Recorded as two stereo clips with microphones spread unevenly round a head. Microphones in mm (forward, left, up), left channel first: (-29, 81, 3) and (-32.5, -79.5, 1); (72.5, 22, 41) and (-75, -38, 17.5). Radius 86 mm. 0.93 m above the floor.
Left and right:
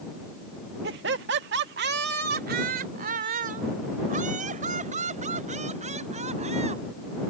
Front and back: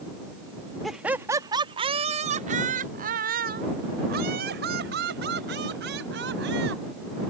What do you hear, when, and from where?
0.8 s laughter: 70° right; by 6.8 s 140° right